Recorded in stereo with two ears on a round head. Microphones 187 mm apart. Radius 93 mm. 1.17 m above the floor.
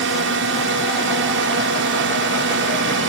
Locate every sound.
0.0 s a drone: 60° right (ahead or behind)